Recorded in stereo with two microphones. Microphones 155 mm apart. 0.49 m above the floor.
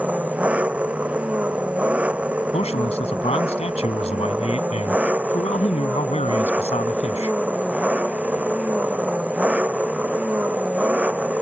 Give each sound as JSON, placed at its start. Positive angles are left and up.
{"t": 0.0, "sound": "an engine running", "side_deg": -10}
{"t": 2.5, "sound": "a man speaking", "side_deg": 40}